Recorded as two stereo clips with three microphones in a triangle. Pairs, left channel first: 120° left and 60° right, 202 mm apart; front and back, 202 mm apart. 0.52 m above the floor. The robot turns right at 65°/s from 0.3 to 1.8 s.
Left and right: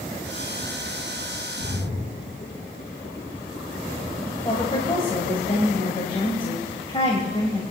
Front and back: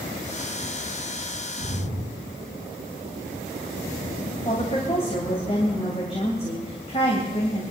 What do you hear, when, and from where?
1.6 s a splash: 125° left, 7.5 m; by 5.5 s 140° left, 7.5 m
4.5 s a woman speaking: 60° left, 2 m